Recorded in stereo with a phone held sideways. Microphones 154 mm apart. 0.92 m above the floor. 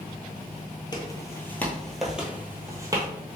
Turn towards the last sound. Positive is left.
turn(degrees=-25)  # may be behind; listen again after turning